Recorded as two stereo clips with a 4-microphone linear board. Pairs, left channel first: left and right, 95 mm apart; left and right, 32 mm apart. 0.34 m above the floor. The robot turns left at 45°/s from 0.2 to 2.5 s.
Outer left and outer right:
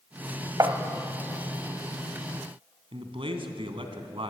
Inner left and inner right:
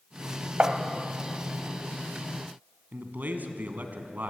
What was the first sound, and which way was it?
Tapping, 40° right (ahead or behind).